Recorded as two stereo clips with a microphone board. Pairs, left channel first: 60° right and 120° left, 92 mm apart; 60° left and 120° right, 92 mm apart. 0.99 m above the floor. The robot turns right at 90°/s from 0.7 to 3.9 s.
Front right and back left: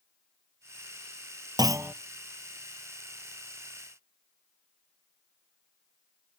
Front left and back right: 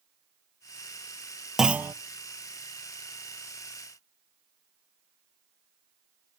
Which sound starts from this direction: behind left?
A clunk, at 1.6 s.